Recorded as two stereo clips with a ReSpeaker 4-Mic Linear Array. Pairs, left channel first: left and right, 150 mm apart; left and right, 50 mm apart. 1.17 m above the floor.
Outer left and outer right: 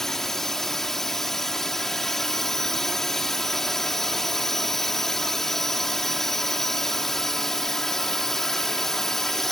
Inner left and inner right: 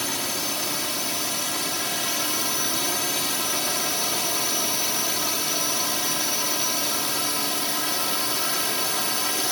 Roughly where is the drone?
Centre.